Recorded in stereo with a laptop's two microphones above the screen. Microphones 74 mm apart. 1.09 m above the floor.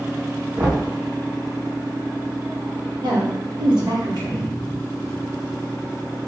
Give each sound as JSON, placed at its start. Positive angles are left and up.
{"t": 0.6, "sound": "knocking", "side_deg": -60, "distance_m": 0.9}
{"t": 3.0, "sound": "a woman speaking", "side_deg": -75, "distance_m": 1.2}